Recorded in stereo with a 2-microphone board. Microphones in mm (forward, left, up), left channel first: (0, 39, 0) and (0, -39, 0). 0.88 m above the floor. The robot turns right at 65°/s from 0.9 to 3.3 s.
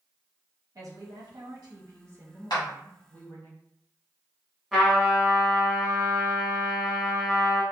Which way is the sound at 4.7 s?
Centre (ahead or behind).